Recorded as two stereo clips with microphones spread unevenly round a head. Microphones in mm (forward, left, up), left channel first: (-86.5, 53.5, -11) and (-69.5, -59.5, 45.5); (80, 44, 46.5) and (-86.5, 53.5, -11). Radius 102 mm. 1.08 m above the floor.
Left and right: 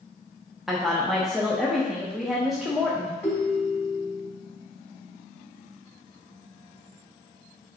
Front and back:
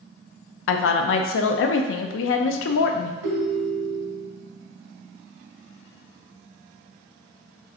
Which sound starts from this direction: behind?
A ringtone, at 3.2 s.